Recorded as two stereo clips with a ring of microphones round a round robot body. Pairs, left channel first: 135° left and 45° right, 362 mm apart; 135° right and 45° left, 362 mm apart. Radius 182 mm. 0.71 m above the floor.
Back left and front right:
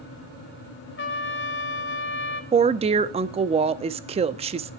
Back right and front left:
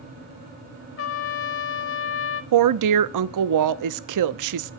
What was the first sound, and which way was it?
A trumpet, 175° right.